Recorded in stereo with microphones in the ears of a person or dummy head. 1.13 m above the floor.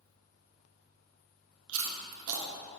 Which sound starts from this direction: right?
Chewing, at 1.7 s.